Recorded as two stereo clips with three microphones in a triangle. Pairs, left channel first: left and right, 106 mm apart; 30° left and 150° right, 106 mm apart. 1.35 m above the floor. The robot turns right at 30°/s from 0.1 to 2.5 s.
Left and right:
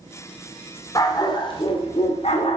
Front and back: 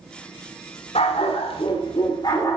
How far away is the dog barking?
About 1.9 m.